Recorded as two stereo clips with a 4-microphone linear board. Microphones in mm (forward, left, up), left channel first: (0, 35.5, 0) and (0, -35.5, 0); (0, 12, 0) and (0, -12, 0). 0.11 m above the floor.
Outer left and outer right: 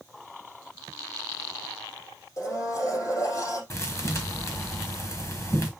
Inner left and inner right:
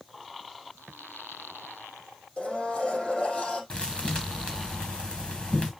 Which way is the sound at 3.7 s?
45° left (ahead or behind).